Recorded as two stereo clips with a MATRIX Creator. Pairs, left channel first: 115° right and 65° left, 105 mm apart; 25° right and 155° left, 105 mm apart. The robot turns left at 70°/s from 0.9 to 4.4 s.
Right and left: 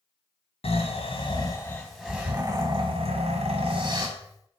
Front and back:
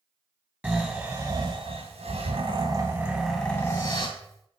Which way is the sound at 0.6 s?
130° right.